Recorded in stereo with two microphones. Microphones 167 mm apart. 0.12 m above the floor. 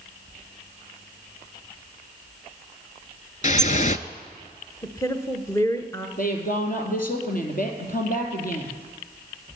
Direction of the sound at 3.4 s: 50° left (ahead or behind).